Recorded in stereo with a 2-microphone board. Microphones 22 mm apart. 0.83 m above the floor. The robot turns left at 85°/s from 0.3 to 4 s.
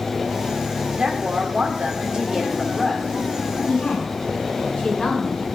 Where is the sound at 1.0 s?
45° right, 3 m; by 3.1 s 135° left, 3 m.